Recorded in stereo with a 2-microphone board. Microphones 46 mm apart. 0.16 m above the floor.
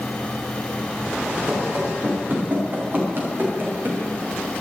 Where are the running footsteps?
30° right (ahead or behind), 5 m; by 4.0 s 45° right (ahead or behind), 5.5 m.